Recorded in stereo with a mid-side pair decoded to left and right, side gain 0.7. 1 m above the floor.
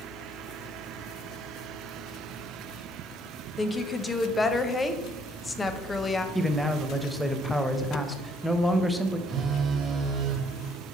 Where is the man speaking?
Straight ahead, 0.6 m.